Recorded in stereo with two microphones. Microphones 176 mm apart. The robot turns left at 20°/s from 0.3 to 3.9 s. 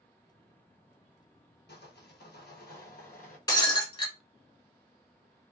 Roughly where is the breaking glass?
Left.